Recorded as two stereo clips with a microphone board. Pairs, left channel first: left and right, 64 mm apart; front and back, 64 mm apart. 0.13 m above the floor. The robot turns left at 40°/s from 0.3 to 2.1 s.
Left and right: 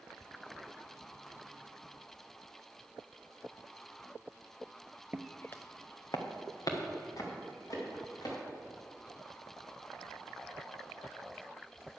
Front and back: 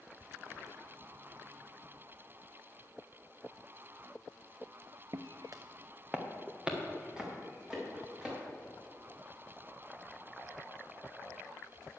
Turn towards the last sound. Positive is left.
turn(degrees=100)